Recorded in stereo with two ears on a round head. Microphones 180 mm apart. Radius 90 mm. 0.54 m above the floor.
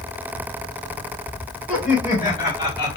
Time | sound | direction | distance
1.7 | laughter | 40° left (ahead or behind) | 3.5 m